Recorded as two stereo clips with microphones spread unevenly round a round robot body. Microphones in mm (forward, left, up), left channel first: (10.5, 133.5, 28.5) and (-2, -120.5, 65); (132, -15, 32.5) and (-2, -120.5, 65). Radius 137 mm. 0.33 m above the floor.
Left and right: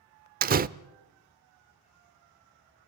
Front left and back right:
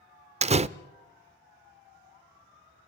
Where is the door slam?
120° right, 0.6 m.